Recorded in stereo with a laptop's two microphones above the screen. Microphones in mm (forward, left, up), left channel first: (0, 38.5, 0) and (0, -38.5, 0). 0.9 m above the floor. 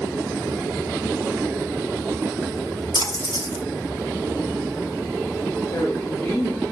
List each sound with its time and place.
2.9 s a splash: 80° left, 1.8 m
5.7 s a woman speaking: 45° left (ahead or behind), 1.5 m